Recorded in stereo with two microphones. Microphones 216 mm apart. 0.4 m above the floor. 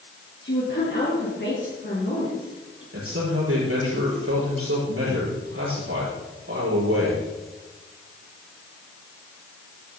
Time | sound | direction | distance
0.4 | a woman speaking | 50° left (ahead or behind) | 6 m
2.9 | a man speaking | 80° right | 7 m